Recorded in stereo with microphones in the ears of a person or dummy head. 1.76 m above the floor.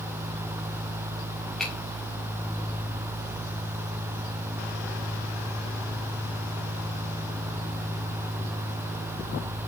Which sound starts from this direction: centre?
A finger snap, at 1.6 s.